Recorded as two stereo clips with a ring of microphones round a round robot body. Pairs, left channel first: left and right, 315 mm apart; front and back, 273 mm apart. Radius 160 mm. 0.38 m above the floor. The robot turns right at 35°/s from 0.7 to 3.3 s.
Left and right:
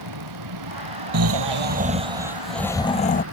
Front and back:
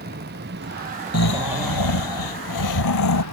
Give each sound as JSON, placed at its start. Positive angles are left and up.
{"t": 0.0, "sound": "a vehicle", "azimuth_deg": -115}
{"t": 1.1, "sound": "snoring", "azimuth_deg": -45}